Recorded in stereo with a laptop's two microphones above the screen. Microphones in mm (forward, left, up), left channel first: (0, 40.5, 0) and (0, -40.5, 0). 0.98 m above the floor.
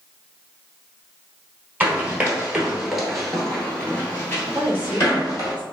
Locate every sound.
1.8 s running footsteps: 20° right (ahead or behind), 1.2 m; by 5.5 s 35° left (ahead or behind), 1.4 m
4.5 s a woman speaking: 20° right (ahead or behind), 1.2 m